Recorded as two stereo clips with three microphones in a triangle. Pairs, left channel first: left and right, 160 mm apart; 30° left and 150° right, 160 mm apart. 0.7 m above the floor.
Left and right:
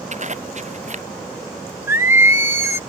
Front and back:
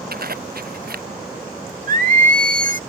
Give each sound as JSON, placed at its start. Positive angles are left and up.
{"t": 0.1, "sound": "a zipper", "azimuth_deg": -130}
{"t": 1.9, "sound": "singing", "azimuth_deg": -165}